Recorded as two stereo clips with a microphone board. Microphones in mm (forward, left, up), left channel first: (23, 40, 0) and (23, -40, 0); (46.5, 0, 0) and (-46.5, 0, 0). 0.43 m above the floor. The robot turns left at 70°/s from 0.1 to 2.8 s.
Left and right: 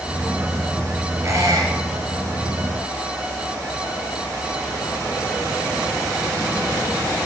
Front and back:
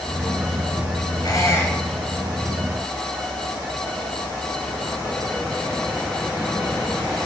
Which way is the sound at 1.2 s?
45° right.